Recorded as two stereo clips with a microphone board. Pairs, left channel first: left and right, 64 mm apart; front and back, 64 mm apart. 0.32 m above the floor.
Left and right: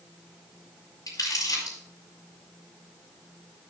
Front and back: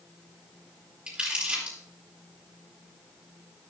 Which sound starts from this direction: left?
Crumpling, at 1.1 s.